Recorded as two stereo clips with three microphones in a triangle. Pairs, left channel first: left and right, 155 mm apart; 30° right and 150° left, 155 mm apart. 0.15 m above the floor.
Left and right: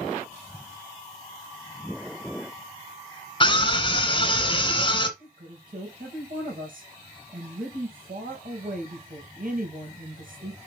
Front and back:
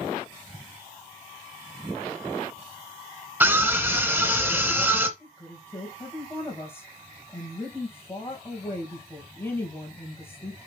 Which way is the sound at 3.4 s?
85° left.